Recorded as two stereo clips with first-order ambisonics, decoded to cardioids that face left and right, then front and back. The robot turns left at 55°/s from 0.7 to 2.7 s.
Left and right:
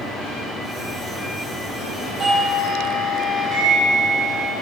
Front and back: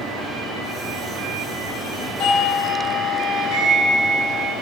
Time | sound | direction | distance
2.2 | a doorbell | 25° right | 2.5 m